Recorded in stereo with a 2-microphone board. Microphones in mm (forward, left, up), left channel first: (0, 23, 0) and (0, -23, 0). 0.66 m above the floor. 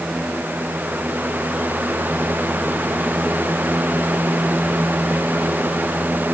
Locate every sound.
Only background noise.